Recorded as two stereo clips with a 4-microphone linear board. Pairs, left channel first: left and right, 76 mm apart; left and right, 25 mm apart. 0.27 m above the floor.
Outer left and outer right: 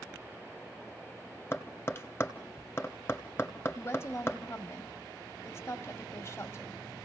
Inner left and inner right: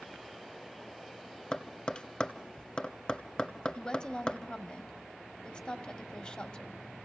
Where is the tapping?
30° left (ahead or behind), 1.4 m.